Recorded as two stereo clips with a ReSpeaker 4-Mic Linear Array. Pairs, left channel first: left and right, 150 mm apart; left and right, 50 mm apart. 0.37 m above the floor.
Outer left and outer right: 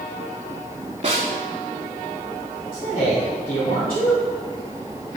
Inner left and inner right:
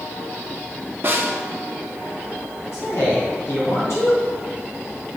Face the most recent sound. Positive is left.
turn(degrees=65)  # may be behind; listen again after turning